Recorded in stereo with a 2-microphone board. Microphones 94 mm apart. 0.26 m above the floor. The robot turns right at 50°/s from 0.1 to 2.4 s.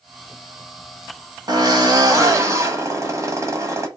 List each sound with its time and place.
1.5 s a drill: 95° right, 1.2 m; by 3.9 s 50° right, 1.2 m